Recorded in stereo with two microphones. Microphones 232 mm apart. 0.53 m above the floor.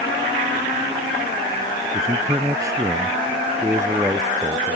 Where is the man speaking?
15° right (ahead or behind); by 4.8 s 10° right (ahead or behind).